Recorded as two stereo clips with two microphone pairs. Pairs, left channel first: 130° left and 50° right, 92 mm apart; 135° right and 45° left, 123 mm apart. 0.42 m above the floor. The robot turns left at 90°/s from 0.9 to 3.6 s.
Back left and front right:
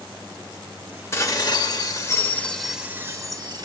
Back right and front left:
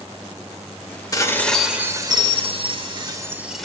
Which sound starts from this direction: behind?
Dishes clattering, at 1.1 s.